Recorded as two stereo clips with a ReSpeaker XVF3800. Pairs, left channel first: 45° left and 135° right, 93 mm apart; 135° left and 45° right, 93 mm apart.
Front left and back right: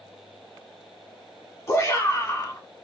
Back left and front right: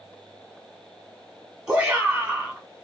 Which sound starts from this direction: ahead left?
A shout, at 1.7 s.